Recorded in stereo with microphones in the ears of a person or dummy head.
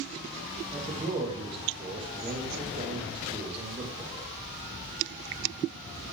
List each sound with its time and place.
0.7 s a man speaking: 25° right (ahead or behind), 2 m